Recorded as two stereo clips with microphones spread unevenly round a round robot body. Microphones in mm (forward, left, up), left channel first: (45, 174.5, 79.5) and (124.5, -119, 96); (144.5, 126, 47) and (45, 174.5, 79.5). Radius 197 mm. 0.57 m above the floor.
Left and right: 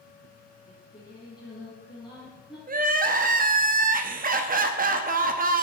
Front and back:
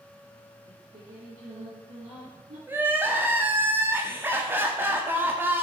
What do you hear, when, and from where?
0.7 s singing: 165° right, 5.5 m
2.7 s crying: 120° right, 1.0 m